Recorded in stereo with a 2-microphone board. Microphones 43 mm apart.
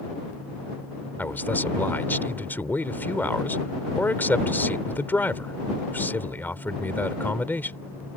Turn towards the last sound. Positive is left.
turn(degrees=50)  # may be behind; listen again after turning